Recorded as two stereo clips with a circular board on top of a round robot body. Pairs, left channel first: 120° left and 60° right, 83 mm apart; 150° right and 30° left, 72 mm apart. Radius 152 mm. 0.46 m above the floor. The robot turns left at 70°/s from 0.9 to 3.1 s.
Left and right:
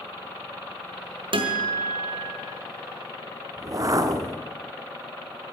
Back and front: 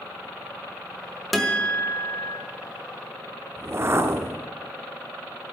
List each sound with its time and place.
1.3 s a guitar: 60° right, 1.7 m; by 2.4 s 135° right, 1.7 m
3.6 s a whoosh: 20° right, 1.0 m